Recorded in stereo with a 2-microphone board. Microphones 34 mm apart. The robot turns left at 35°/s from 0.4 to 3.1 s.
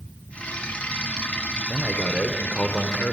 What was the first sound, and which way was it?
A man speaking, 165° left.